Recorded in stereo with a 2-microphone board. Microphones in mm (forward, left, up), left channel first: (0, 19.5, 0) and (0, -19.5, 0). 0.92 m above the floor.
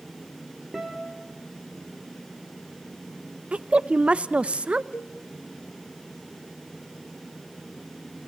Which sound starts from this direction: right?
A woman speaking, at 3.5 s.